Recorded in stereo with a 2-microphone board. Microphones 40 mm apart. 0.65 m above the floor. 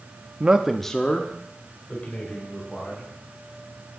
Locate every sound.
0.4 s a man speaking: 30° right (ahead or behind), 0.6 m; by 3.1 s 40° left (ahead or behind), 3.5 m